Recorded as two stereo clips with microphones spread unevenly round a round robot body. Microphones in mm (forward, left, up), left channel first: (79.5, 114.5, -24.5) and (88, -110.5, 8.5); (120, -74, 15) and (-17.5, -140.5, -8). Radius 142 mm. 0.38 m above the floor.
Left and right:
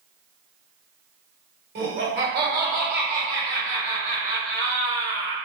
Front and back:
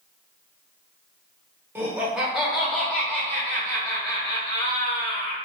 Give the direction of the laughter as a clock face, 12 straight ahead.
4 o'clock.